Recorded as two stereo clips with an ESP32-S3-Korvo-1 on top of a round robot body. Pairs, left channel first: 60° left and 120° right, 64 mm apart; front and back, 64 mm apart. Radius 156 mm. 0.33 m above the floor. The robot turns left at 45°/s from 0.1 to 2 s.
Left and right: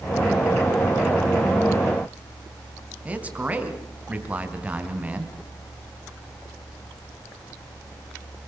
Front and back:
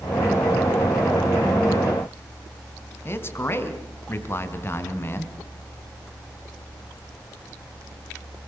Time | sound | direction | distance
3.0 | a man speaking | 50° right | 4 m